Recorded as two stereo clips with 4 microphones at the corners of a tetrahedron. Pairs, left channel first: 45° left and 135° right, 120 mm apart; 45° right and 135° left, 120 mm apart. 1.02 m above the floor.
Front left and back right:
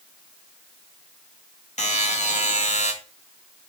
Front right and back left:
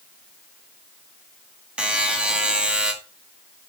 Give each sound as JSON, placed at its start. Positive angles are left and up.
{"t": 1.8, "sound": "a buzzer", "azimuth_deg": 55, "distance_m": 2.0}